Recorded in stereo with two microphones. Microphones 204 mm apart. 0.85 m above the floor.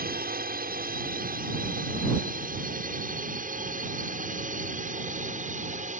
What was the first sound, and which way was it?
A drone, 45° right (ahead or behind).